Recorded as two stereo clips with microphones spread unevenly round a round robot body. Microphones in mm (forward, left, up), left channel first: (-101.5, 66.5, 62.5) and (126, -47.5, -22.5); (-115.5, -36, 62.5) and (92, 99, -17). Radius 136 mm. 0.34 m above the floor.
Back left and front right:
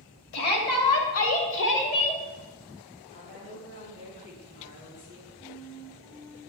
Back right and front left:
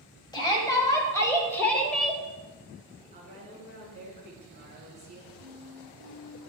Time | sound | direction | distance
0.3 | a shout | 130° left | 2.5 m
3.1 | a woman speaking | 85° left | 4 m
5.4 | a flute | 80° left | 1.9 m